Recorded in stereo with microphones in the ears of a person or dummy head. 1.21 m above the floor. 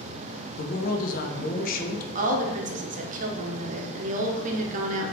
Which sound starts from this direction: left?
A man speaking, at 0.6 s.